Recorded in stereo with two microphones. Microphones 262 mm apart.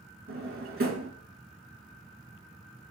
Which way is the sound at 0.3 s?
50° right (ahead or behind).